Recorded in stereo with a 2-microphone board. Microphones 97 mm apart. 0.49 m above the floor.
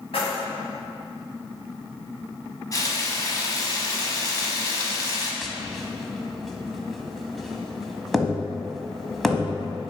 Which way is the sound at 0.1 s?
80° left.